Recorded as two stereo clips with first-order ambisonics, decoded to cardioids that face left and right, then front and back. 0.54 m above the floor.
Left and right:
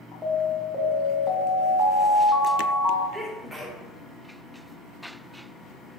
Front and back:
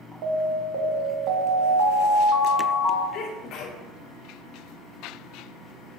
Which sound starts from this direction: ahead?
A sneeze, at 3.1 s.